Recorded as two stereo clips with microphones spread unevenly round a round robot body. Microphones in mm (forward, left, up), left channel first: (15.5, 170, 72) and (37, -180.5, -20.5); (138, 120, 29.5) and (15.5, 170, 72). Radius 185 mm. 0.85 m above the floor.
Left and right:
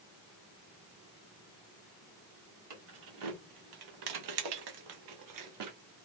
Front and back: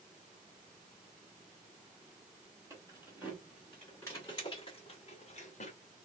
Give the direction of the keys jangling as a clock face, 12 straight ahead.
4 o'clock.